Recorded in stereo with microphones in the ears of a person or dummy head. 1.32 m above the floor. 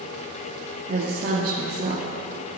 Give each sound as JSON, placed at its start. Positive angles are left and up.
{"t": 0.9, "sound": "a woman speaking", "side_deg": -50, "distance_m": 1.9}